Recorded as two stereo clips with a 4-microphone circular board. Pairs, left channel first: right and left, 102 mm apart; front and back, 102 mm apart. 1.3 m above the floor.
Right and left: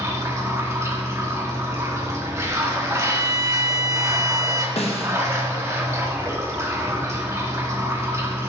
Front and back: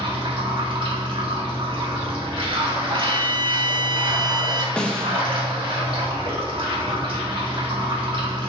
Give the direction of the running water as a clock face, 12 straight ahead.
7 o'clock.